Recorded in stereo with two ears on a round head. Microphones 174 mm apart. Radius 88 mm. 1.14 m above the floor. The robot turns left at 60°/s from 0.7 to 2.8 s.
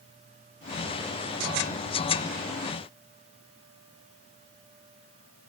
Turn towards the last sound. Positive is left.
No sound to turn to.